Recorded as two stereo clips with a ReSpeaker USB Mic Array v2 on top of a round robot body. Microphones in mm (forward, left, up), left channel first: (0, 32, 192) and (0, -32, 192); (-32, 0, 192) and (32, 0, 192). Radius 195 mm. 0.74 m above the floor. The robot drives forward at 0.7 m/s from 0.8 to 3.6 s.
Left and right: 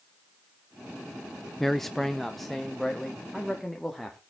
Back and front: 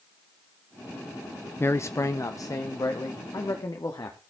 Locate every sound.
1.6 s a man speaking: 175° left, 0.7 m; by 4.2 s straight behind, 1.8 m